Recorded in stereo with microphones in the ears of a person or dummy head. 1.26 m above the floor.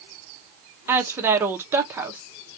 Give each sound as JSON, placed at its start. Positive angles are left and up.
{"t": 0.9, "sound": "a woman speaking", "side_deg": -15, "distance_m": 1.1}